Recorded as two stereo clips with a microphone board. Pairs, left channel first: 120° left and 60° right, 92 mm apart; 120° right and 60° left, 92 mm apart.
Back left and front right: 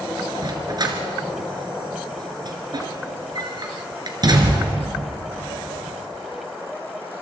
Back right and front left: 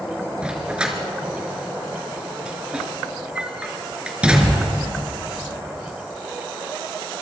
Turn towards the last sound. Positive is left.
turn(degrees=-20)